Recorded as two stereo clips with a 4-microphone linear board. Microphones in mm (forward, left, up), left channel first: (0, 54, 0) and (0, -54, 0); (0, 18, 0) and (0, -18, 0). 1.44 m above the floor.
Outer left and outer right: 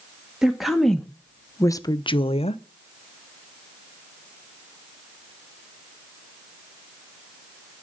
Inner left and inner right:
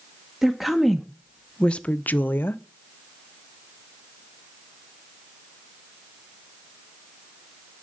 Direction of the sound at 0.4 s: 5° right (ahead or behind).